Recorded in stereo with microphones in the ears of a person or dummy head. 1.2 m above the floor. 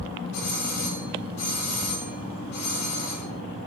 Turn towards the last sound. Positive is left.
turn(degrees=65)  # may be behind; listen again after turning